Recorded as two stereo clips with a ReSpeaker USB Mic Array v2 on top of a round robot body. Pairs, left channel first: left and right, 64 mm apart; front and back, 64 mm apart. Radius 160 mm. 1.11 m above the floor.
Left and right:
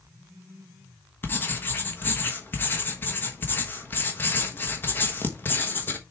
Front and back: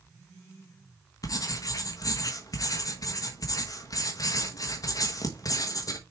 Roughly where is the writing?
Ahead left.